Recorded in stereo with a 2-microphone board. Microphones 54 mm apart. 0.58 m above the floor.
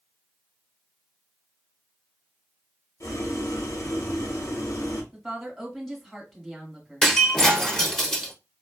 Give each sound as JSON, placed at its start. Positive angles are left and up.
{"t": 3.0, "sound": "boiling", "side_deg": 75, "distance_m": 0.9}
{"t": 5.1, "sound": "a woman speaking", "side_deg": 0, "distance_m": 1.4}
{"t": 7.0, "sound": "breaking glass", "side_deg": 5, "distance_m": 0.7}